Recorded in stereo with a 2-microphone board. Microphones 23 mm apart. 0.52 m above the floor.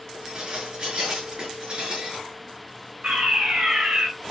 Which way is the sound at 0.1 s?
35° right (ahead or behind).